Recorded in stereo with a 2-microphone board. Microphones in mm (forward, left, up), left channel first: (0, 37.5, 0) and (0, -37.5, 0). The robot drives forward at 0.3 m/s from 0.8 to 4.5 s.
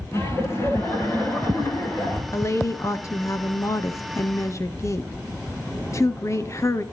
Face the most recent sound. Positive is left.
turn(degrees=40)  # may be behind; listen again after turning